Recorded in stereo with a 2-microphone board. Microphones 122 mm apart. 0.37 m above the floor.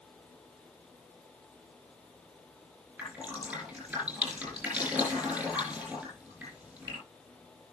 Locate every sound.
3.0 s dripping: 15° right (ahead or behind), 8.5 m